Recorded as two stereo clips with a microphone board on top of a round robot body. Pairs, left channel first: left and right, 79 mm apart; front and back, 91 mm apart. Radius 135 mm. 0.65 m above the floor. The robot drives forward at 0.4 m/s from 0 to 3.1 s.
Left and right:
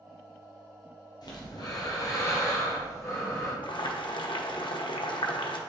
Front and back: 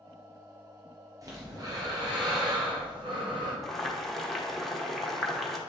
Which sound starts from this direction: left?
Boiling, at 3.6 s.